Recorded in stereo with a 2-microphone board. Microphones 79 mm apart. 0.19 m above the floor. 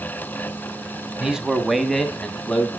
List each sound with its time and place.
1.2 s a man speaking: 10° right (ahead or behind), 1.5 m; by 2.7 s 10° left (ahead or behind), 1.8 m